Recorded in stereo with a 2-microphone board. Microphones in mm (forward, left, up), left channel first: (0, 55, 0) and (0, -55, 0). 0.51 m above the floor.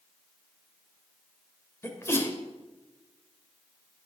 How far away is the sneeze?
About 2.5 m.